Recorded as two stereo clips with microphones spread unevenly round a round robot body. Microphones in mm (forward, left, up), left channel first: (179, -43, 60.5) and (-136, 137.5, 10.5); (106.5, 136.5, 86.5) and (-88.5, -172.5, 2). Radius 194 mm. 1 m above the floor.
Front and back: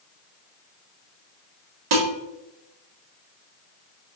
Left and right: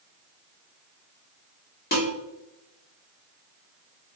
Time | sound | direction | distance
1.9 | dishes clattering | 125° left | 1.5 m